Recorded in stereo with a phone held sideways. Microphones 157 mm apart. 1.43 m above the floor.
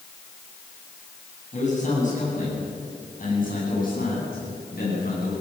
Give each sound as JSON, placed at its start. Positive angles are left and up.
{"t": 1.5, "sound": "a man speaking", "side_deg": 45, "distance_m": 9.5}